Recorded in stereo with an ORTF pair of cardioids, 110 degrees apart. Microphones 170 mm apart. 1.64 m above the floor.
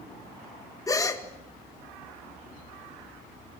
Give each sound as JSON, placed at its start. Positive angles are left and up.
{"t": 0.9, "sound": "a gasp", "azimuth_deg": 20, "distance_m": 1.9}